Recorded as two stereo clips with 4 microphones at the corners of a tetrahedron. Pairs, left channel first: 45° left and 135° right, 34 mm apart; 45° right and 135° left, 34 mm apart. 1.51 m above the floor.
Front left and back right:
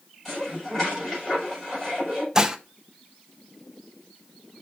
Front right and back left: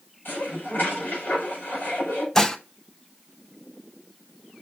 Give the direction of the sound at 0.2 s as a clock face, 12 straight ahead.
1 o'clock.